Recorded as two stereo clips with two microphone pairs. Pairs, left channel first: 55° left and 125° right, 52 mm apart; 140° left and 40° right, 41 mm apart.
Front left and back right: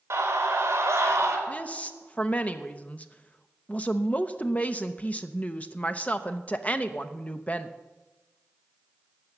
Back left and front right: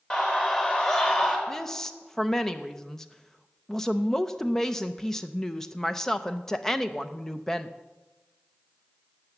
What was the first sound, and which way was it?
A scream, 160° right.